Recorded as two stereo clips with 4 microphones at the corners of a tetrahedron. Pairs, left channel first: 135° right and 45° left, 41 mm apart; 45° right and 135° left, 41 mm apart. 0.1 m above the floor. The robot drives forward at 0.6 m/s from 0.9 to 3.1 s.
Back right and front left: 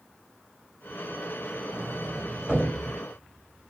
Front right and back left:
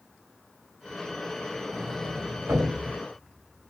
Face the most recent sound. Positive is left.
turn(degrees=120)